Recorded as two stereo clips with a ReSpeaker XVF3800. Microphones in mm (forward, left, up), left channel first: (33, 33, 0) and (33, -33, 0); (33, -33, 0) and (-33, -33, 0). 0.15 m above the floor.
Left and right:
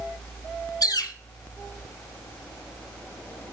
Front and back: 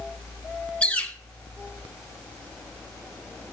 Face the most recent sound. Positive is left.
turn(degrees=70)